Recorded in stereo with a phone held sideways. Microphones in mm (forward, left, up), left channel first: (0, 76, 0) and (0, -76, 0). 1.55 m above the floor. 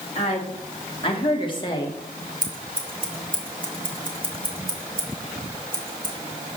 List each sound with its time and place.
0.1 s a woman speaking: 45° left (ahead or behind), 3.5 m; by 2.0 s 25° left (ahead or behind), 2.5 m
2.4 s scissors: 65° right (ahead or behind), 2.5 m